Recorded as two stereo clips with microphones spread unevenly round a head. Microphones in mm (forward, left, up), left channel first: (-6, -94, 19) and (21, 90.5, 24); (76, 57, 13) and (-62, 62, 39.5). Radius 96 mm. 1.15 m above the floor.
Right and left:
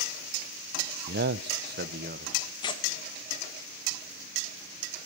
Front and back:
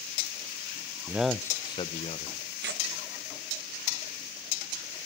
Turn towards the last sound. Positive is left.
turn(degrees=-165)